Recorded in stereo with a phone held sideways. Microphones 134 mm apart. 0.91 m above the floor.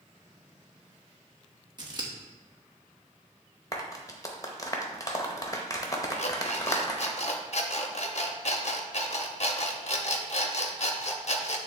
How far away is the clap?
About 0.9 m.